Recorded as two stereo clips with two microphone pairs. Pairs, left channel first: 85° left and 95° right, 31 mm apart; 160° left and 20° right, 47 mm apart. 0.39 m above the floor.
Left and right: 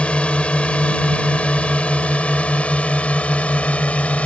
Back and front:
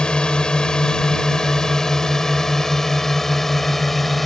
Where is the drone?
100° left; by 4.3 s 75° left.